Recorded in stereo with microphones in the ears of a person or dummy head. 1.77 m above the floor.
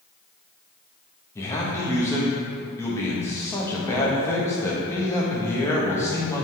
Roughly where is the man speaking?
Centre.